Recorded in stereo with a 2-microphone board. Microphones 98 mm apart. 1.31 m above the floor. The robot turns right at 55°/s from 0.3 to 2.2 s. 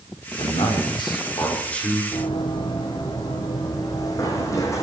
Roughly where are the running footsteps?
Left.